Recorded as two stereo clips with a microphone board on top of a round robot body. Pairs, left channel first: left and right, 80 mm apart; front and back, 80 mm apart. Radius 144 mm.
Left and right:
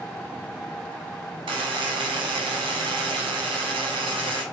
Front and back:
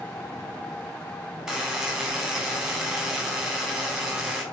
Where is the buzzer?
95° right, 0.6 m.